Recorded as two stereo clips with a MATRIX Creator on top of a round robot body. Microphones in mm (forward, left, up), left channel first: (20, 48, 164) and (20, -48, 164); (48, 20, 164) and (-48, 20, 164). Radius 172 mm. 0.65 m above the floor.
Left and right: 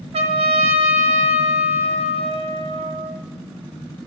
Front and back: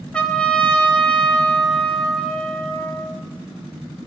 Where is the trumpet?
80° right, 0.5 m.